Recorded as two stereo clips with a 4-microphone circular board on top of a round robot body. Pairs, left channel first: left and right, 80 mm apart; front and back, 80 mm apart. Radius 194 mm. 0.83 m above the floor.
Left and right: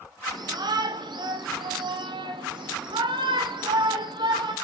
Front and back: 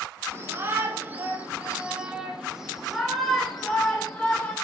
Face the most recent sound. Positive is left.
turn(degrees=-80)